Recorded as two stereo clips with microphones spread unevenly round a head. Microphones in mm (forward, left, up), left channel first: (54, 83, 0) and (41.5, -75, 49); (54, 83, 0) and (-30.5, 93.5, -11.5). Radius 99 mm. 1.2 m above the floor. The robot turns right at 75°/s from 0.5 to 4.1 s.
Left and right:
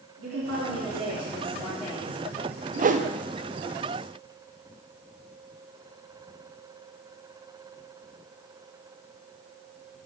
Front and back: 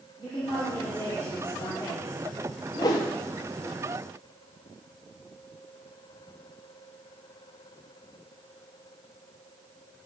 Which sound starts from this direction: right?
A woman speaking, at 0.2 s.